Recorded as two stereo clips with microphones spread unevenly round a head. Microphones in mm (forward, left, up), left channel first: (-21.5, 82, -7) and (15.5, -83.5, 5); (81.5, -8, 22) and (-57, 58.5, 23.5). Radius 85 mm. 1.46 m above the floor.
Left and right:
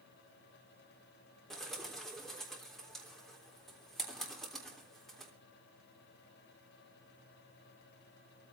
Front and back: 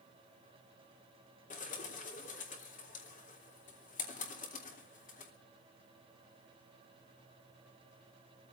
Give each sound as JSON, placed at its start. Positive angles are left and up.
{"t": 1.5, "sound": "a bird", "azimuth_deg": 15, "distance_m": 3.5}